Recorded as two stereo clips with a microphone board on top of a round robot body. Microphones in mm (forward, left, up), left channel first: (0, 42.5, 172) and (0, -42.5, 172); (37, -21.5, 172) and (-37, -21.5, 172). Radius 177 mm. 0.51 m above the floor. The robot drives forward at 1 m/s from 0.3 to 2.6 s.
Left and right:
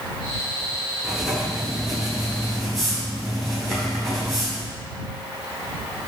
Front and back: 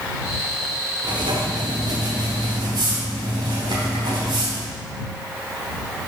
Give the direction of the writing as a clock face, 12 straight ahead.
6 o'clock.